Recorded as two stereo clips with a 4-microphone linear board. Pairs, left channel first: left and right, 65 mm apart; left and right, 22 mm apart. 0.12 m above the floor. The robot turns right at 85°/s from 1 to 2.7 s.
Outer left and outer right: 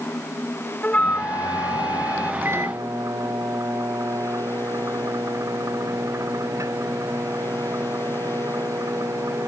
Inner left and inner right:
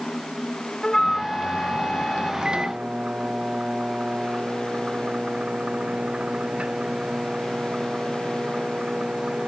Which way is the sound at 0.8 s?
20° left.